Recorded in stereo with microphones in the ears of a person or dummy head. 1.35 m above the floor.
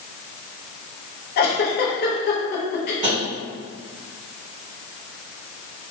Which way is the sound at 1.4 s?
50° left (ahead or behind).